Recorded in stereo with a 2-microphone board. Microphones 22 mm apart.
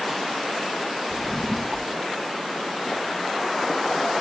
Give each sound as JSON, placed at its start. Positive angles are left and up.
{"t": 1.1, "sound": "a drawer", "side_deg": 15, "distance_m": 0.6}